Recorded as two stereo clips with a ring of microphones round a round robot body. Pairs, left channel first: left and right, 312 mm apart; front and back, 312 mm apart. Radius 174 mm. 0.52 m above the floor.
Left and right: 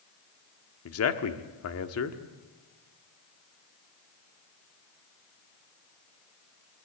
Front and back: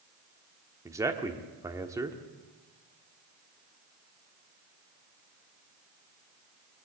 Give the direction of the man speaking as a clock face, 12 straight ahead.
9 o'clock.